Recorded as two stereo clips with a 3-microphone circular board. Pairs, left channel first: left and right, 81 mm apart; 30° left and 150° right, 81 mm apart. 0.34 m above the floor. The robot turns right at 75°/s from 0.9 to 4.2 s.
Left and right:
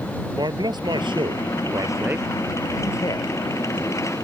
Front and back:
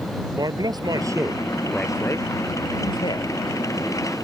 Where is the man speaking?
115° right; by 3.3 s 65° left.